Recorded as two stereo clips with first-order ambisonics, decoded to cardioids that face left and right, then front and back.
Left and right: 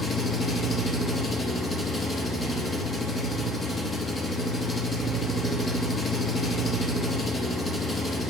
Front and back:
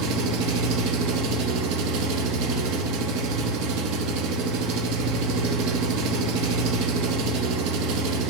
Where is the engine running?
165° left, 0.7 m.